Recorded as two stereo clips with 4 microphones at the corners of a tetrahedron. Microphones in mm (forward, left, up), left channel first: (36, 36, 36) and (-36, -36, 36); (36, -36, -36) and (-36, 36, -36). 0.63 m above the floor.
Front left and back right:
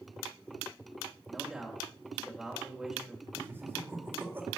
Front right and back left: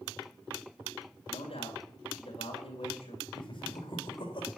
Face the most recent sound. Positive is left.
turn(degrees=-70)